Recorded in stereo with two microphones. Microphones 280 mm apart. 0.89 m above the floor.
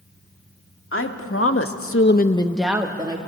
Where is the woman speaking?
45° left (ahead or behind), 2 m; by 3.2 s 20° right (ahead or behind), 1.7 m.